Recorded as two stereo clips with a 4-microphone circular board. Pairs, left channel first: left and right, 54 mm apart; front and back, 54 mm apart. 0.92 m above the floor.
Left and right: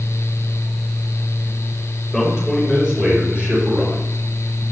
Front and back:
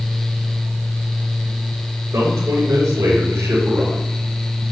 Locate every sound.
2.1 s a man speaking: 175° right, 3.5 m; by 4.0 s 150° right, 3.5 m